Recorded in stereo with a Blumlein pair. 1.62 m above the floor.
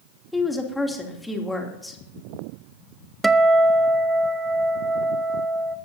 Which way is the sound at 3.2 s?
10° right.